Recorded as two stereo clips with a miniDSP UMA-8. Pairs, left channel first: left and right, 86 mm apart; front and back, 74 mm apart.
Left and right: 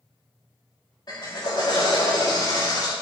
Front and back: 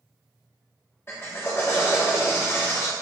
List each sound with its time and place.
1.1 s a drill: 55° left, 2.5 m